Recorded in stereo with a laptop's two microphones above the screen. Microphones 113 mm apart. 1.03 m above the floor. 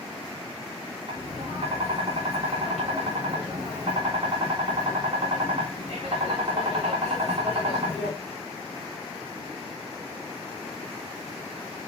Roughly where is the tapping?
Right.